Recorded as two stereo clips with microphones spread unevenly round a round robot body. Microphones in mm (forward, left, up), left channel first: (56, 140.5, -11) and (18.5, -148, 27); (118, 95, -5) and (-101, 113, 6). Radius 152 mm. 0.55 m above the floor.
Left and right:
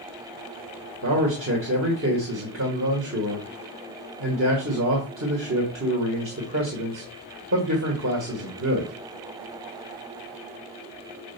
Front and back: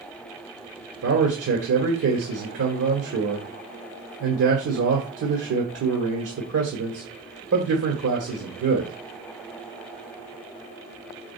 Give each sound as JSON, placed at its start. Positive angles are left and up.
{"t": 1.0, "sound": "a man speaking", "azimuth_deg": -150, "distance_m": 1.7}